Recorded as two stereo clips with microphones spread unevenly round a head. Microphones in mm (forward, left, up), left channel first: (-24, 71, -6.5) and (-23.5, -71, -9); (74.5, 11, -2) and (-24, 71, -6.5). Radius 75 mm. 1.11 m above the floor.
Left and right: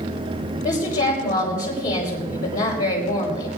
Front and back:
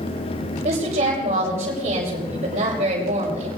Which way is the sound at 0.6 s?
120° left.